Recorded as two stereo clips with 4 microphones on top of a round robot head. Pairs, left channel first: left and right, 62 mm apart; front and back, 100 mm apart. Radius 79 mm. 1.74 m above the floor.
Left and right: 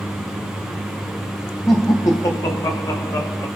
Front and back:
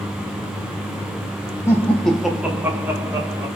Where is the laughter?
45° left, 0.5 m; by 3.5 s 125° left, 1.1 m.